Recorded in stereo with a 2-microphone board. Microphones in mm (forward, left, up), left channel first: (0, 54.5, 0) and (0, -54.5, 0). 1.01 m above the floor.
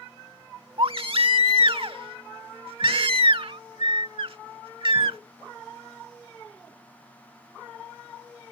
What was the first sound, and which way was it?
A baby crying, 55° right (ahead or behind).